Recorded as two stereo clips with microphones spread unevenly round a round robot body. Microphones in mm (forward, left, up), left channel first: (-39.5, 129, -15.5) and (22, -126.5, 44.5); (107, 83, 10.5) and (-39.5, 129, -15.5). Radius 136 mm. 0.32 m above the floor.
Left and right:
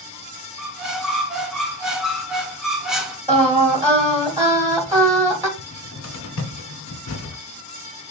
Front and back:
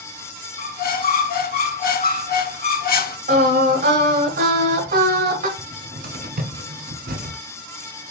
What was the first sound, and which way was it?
A squeak, 10° left.